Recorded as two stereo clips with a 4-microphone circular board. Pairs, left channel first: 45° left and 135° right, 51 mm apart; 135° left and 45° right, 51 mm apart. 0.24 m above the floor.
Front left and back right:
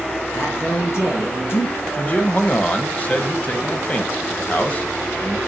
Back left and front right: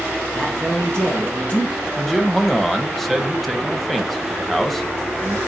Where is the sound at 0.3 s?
75° left, 5 m.